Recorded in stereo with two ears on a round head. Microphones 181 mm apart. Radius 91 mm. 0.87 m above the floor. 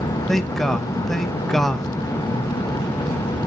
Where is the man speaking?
Centre (ahead or behind), 0.7 m.